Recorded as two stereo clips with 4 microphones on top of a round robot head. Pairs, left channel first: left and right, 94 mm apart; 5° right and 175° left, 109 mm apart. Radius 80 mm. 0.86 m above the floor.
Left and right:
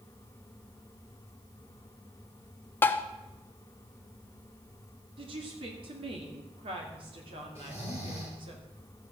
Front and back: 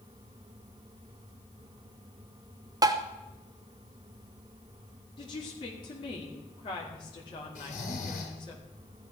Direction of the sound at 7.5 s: 20° right.